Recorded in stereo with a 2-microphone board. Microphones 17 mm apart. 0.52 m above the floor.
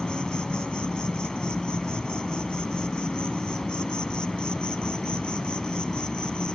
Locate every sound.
0.0 s an insect: 50° left (ahead or behind)